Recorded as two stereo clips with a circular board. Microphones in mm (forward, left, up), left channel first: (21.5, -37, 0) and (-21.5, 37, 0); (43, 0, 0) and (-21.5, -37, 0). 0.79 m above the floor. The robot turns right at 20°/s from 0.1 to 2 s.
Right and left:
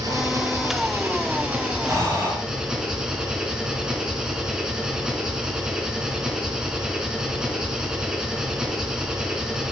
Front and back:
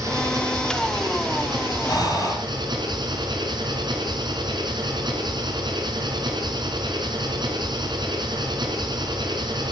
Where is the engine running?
165° left, 4 m; by 9.7 s 160° right, 4 m.